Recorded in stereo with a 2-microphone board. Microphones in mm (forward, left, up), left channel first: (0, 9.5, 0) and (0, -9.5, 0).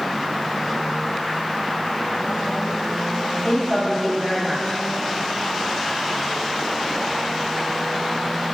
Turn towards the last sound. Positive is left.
turn(degrees=50)  # may be behind; listen again after turning